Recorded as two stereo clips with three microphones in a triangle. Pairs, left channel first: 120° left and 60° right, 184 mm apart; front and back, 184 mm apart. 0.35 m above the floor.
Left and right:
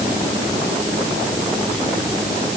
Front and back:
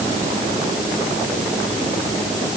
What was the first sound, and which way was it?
Only background noise.